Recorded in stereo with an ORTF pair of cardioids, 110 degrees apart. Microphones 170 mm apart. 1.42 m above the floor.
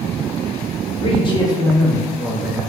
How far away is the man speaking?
About 1.1 m.